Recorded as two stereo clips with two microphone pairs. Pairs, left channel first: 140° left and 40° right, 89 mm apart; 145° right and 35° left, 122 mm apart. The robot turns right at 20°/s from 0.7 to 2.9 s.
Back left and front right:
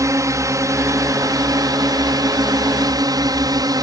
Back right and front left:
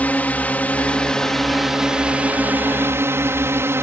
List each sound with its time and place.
0.0 s a drone: 75° right; by 3.8 s 30° right